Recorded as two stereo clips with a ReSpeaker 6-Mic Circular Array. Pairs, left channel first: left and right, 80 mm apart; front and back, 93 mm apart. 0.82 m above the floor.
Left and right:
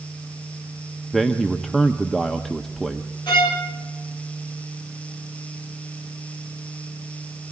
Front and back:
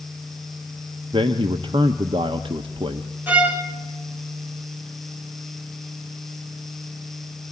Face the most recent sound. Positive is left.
turn(degrees=110)